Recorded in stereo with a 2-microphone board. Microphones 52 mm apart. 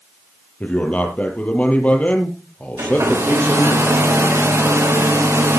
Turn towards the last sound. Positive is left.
turn(degrees=-70)  # may be behind; listen again after turning